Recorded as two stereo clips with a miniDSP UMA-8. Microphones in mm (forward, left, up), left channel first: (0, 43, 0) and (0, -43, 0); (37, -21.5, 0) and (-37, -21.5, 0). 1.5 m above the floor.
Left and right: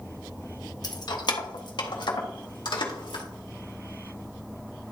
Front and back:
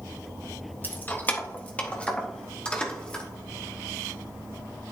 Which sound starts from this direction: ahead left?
Keys jangling, at 0.8 s.